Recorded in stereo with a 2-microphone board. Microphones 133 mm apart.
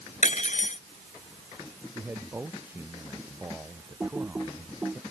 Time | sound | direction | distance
0.2 | cutlery clinking | 65° left (ahead or behind) | ?
1.9 | a man speaking | 15° right (ahead or behind) | ?
4.0 | typing on a keyboard | 10° right (ahead or behind) | ?